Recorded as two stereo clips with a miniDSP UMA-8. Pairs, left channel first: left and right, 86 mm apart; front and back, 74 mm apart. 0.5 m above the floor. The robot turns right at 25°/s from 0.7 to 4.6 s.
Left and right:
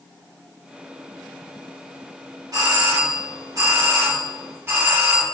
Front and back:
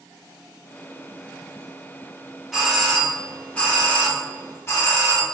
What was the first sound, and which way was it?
A doorbell, 90° right.